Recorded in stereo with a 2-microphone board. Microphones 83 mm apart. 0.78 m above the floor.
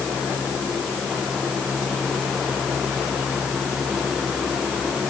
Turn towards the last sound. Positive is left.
No sound to turn to.